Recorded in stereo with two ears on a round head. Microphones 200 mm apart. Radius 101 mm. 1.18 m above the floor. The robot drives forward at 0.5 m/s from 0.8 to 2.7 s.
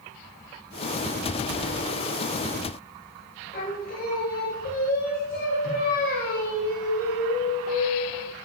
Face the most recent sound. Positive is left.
turn(degrees=40)  # may be behind; listen again after turning